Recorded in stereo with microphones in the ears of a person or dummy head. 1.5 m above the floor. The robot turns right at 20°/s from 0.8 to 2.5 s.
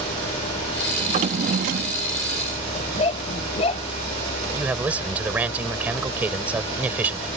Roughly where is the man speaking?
Centre.